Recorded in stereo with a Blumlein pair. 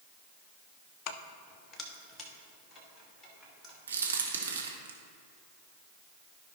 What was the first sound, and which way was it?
Keys jangling, 40° left.